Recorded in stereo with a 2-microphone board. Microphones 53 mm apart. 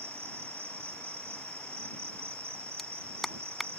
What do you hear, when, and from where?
0.0 s an insect: 50° right (ahead or behind)
2.8 s a clap: 5° left (ahead or behind)